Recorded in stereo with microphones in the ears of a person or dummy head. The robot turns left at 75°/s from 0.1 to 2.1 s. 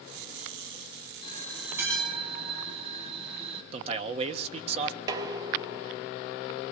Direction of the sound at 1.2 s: 35° left.